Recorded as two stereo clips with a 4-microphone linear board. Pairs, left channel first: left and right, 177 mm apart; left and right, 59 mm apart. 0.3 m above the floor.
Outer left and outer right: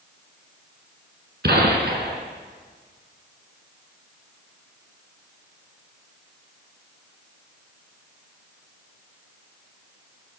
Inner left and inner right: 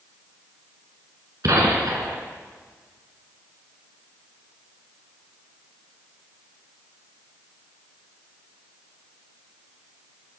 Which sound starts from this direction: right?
A gunshot, at 1.4 s.